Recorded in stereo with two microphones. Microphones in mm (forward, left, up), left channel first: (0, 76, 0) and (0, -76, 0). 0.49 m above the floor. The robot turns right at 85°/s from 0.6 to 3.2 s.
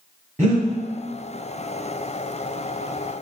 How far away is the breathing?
About 1.9 m.